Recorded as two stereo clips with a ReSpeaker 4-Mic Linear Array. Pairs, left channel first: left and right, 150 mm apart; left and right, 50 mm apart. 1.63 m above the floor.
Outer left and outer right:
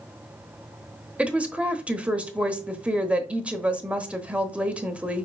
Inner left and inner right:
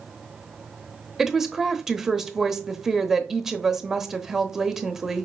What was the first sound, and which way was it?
A woman speaking, 10° right (ahead or behind).